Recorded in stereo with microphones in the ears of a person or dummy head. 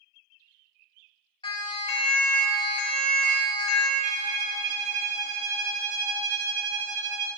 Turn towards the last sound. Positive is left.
turn(degrees=-40)  # may be behind; listen again after turning